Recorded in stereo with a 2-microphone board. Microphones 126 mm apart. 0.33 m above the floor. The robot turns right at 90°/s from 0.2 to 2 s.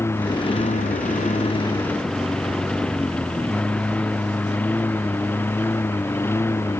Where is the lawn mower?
20° left (ahead or behind).